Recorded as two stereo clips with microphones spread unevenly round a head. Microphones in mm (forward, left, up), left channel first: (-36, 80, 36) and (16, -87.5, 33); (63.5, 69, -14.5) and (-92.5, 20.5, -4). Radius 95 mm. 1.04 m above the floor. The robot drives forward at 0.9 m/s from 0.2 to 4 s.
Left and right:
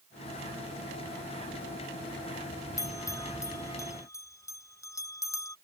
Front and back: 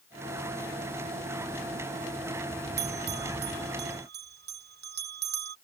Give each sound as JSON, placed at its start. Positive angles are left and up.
{"t": 2.8, "sound": "a bell", "azimuth_deg": 180}